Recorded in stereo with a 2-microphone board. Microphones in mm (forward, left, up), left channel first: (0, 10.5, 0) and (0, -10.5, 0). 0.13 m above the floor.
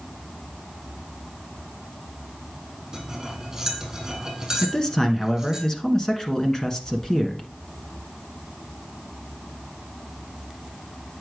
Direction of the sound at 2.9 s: 25° right (ahead or behind).